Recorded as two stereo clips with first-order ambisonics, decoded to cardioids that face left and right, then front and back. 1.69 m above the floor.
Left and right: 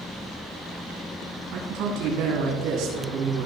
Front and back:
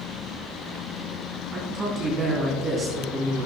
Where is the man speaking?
115° right, 3 m.